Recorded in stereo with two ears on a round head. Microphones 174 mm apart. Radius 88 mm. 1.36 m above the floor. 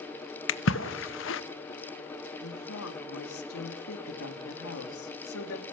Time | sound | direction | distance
0.5 | a splash | 70° left (ahead or behind) | 1.0 m
2.4 | a woman speaking | 90° left | 2.5 m